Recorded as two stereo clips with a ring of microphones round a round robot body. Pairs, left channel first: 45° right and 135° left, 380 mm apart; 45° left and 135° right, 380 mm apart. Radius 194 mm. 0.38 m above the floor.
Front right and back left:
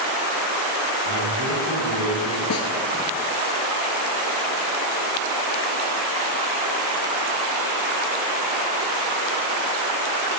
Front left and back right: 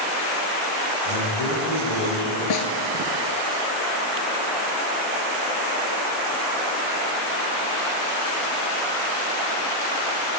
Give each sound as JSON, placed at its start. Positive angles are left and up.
{"t": 1.1, "sound": "a man speaking", "azimuth_deg": 90, "distance_m": 5.5}
{"t": 2.5, "sound": "a snare drum", "azimuth_deg": 10, "distance_m": 1.6}